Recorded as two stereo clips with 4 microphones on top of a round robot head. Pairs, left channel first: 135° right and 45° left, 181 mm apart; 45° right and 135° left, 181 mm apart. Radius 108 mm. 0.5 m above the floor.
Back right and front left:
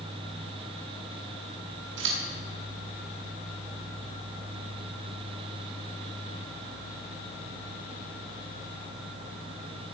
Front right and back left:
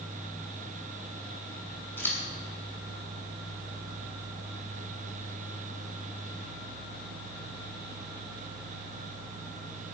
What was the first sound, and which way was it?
Scissors, 35° left.